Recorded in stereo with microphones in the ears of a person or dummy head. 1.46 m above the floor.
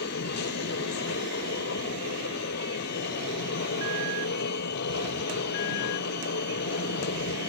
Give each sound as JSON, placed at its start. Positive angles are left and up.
{"t": 0.0, "sound": "a machine running", "side_deg": 60}